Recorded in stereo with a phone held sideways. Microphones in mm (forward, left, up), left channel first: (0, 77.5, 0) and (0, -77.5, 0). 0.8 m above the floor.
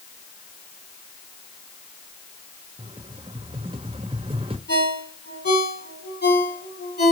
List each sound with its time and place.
2.8 s a rattle: 35° right (ahead or behind), 1.2 m
4.7 s a ringtone: 80° left, 6 m